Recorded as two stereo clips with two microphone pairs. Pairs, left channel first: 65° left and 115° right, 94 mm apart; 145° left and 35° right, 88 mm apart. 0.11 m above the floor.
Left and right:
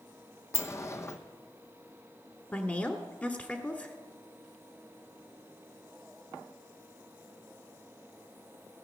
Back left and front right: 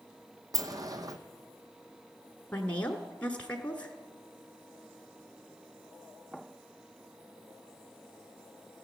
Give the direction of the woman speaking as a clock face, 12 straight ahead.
9 o'clock.